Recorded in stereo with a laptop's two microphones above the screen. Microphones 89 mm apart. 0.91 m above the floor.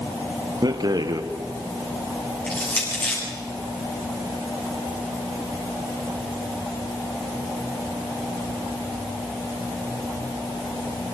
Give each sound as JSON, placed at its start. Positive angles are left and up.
{"t": 0.6, "sound": "a rattle", "side_deg": -50, "distance_m": 1.3}
{"t": 2.5, "sound": "crushing", "side_deg": 15, "distance_m": 8.5}